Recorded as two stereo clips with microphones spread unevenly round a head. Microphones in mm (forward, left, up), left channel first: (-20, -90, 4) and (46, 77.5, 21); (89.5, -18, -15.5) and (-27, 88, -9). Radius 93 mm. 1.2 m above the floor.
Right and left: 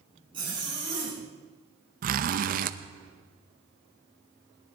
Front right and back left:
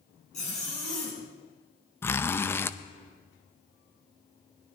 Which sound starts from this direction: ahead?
A zipper, at 0.3 s.